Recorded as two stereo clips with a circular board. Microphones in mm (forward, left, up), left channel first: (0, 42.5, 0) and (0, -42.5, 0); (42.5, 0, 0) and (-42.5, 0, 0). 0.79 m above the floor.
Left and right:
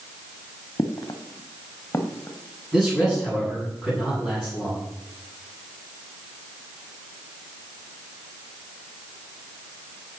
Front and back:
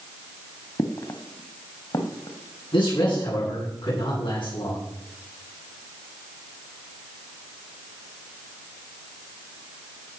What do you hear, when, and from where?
0.8 s footsteps: 45° left, 1.9 m; by 3.5 s 20° left, 4 m
2.7 s a man speaking: straight ahead, 8 m